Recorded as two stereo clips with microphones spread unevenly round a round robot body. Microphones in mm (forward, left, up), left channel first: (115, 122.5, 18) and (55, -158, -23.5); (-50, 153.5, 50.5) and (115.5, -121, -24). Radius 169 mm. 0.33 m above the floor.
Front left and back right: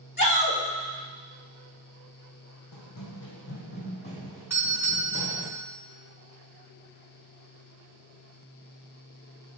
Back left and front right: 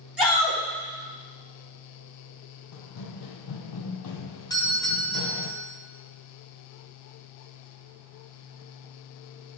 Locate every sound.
0.2 s a shout: 20° left, 3 m
2.7 s running footsteps: 105° left, 1.1 m; by 5.5 s 175° right, 1.2 m
4.5 s a doorbell: 140° right, 1.3 m